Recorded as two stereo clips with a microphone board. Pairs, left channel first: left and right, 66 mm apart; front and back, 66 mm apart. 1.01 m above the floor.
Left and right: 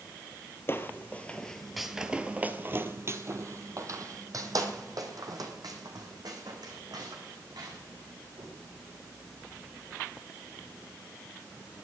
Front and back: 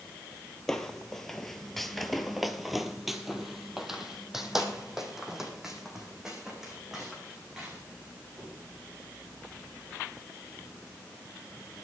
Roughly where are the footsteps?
Left.